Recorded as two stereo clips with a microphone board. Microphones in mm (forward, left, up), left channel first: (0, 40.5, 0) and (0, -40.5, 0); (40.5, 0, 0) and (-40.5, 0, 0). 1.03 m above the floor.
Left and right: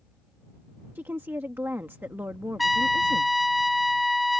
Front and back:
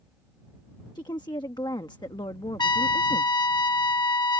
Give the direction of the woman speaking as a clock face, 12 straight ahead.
1 o'clock.